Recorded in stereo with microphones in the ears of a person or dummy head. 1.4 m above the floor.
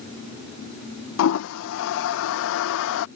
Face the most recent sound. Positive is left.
turn(degrees=80)